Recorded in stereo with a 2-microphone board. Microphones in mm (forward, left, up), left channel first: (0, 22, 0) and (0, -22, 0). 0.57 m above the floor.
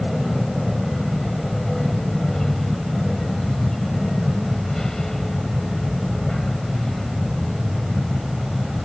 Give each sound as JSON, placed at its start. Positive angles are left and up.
{"t": 0.0, "sound": "an aircraft", "side_deg": 10}